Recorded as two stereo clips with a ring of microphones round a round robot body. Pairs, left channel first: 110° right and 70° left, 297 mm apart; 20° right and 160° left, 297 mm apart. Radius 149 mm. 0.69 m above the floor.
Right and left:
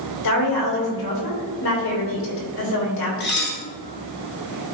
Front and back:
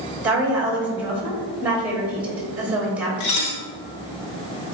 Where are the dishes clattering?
55° right, 1.3 m.